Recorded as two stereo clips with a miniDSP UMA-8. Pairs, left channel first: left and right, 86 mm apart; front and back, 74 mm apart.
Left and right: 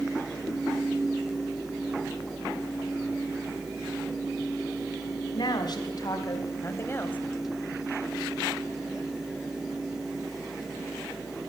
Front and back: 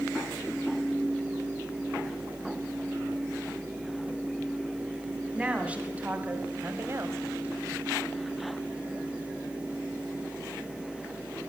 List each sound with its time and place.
5.3 s a woman speaking: 105° left, 1.9 m; by 7.2 s 155° left, 1.3 m